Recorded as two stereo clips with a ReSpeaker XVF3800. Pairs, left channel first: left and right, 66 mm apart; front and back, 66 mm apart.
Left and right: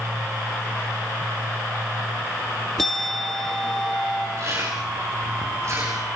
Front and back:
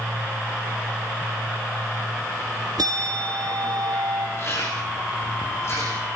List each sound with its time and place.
2.8 s a bell: 175° left, 1.8 m
4.4 s chewing: 45° right, 10 m